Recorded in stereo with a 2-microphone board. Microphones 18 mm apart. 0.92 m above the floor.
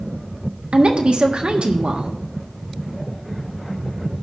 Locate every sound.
0.7 s a woman speaking: 65° right (ahead or behind), 1.5 m